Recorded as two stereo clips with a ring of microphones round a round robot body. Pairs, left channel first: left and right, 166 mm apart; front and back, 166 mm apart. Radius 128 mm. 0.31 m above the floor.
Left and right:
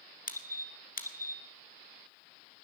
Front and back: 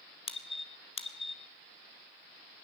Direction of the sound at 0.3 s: 55° left.